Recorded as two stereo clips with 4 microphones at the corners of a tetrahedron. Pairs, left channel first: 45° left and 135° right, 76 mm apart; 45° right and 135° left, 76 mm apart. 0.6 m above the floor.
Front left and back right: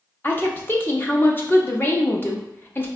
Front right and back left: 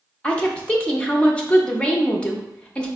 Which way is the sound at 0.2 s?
15° left.